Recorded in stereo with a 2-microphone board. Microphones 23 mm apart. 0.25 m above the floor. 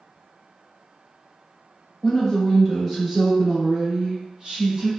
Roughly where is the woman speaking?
Left.